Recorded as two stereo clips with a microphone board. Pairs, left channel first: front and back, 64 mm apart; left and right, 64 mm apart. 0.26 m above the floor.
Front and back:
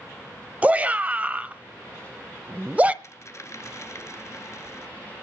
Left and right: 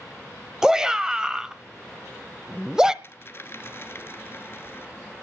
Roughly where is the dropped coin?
Ahead left.